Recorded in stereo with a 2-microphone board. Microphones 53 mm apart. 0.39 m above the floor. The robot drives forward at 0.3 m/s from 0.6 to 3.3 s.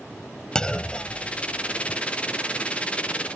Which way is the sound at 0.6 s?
15° left (ahead or behind).